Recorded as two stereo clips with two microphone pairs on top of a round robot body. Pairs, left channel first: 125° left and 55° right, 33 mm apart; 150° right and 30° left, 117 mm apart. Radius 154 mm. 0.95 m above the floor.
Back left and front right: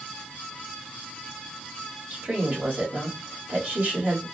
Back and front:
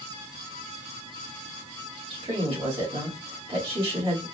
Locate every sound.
2.1 s a woman speaking: 15° right, 2 m